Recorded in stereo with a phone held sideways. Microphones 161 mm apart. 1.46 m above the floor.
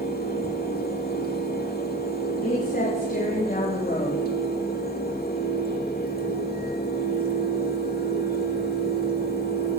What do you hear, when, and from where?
0.0 s a fan: 75° left (ahead or behind), 2 m
2.4 s a woman speaking: 70° left (ahead or behind), 3.5 m